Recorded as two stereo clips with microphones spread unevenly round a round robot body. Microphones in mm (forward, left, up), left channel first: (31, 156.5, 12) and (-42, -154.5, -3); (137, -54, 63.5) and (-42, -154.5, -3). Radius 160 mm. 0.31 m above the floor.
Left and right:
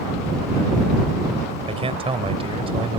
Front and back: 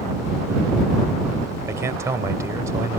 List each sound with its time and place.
1.7 s a man speaking: 155° right